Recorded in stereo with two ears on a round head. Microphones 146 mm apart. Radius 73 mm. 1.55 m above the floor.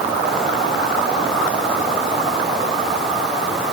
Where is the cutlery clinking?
I don't hear cutlery clinking.